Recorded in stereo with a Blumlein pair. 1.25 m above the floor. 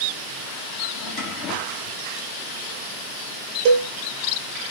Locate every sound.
0.9 s a drawer: 35° left, 1.2 m
3.6 s a cowbell: 40° right, 0.9 m